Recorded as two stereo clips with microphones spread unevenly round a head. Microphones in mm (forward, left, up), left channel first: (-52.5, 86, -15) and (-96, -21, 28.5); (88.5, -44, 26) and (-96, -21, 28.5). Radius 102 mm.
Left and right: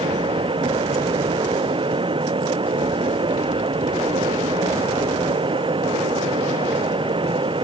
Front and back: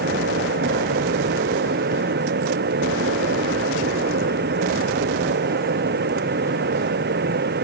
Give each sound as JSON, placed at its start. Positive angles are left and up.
{"t": 0.0, "sound": "a fan", "azimuth_deg": -155}